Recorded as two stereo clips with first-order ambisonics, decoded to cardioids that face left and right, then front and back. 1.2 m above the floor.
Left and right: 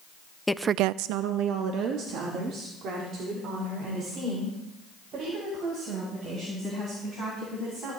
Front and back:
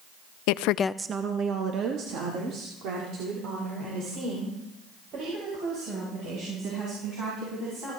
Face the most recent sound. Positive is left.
turn(degrees=-140)